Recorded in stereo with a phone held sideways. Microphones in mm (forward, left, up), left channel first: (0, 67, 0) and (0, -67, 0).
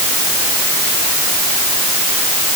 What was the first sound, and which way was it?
Only background noise.